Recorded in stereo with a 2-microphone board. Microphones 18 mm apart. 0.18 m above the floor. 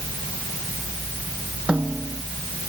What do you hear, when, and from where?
1.7 s a snare drum: 75° right (ahead or behind)